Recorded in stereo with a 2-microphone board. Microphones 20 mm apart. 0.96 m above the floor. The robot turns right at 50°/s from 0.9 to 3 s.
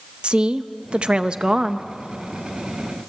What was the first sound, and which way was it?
A woman speaking, 80° right.